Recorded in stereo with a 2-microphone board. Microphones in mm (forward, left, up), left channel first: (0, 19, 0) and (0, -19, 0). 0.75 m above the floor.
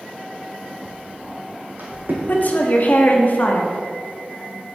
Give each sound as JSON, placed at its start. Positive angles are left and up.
{"t": 0.8, "sound": "footsteps", "side_deg": -30, "distance_m": 1.7}
{"t": 2.3, "sound": "a woman speaking", "side_deg": 50, "distance_m": 1.1}